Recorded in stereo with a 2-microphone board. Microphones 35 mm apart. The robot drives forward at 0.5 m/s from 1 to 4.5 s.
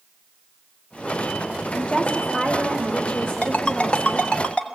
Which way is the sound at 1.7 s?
40° left (ahead or behind).